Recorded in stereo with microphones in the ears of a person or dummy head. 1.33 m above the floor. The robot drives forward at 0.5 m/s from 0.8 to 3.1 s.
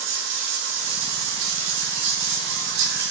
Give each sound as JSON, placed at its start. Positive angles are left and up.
{"t": 0.0, "sound": "running water", "side_deg": -75, "distance_m": 4.0}